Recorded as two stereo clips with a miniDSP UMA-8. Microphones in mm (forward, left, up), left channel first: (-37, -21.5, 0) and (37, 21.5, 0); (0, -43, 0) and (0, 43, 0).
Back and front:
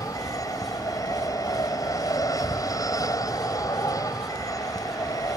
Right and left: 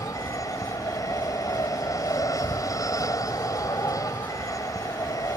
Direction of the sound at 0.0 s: 125° right.